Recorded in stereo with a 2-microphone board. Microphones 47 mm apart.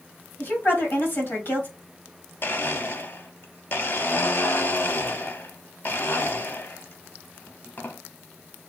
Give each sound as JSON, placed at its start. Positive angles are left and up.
{"t": 0.4, "sound": "a woman speaking", "side_deg": 50, "distance_m": 1.7}
{"t": 2.4, "sound": "a blender", "side_deg": 45, "distance_m": 0.5}